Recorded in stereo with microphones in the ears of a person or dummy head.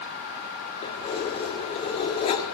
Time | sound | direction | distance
0.8 | keys jangling | 35° left (ahead or behind) | 2 m